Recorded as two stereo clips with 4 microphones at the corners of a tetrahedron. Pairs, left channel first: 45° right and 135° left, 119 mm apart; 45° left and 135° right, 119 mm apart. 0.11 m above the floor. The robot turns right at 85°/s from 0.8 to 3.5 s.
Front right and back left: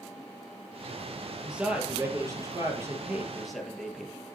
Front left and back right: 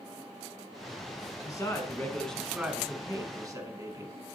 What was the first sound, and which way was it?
A man speaking, 50° left.